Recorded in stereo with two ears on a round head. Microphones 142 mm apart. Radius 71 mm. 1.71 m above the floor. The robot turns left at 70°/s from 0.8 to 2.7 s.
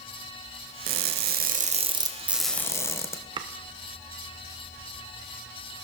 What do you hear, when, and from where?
0.9 s crushing: 70° right, 1.1 m; by 3.2 s 160° left, 1.1 m
3.4 s chopping: 30° right (ahead or behind), 0.8 m